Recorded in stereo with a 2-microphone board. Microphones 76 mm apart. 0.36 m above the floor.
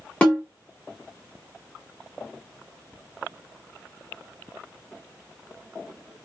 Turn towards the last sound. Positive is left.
turn(degrees=15)  # may be behind; listen again after turning